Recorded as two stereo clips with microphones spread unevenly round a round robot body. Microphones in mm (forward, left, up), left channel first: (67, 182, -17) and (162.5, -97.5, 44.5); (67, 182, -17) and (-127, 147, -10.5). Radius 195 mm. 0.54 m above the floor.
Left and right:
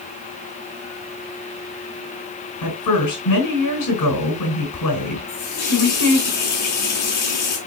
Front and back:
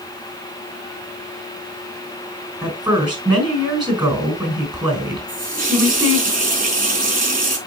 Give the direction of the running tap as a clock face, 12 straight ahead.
7 o'clock.